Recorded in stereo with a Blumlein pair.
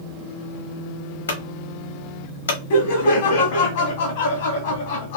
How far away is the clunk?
About 1.0 m.